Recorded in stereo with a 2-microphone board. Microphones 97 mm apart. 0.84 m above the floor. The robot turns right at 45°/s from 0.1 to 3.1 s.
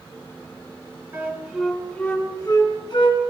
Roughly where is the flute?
Centre.